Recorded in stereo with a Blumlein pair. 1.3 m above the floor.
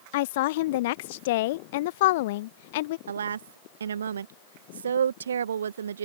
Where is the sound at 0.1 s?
50° left.